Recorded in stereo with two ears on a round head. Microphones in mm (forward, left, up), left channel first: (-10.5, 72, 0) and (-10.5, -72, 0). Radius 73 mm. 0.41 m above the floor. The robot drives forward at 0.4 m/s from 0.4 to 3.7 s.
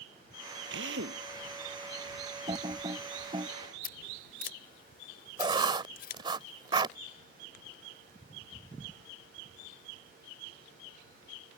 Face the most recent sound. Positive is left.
turn(degrees=-30)  # may be behind; listen again after turning